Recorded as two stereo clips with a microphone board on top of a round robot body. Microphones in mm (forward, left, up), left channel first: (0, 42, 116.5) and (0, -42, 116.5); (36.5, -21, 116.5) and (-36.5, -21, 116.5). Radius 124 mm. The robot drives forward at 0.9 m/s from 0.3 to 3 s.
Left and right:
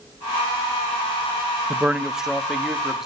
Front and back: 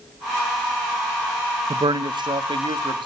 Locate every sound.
1.7 s a man speaking: 165° right, 0.6 m; by 3.1 s 175° right, 1.7 m